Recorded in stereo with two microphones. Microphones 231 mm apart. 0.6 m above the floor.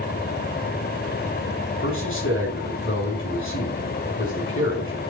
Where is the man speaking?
55° left (ahead or behind), 5.5 m.